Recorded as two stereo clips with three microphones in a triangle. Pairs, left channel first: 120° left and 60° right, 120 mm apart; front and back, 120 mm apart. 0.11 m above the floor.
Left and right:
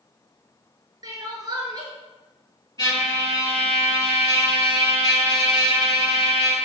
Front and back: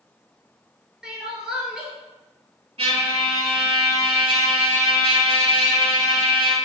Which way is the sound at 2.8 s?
170° left.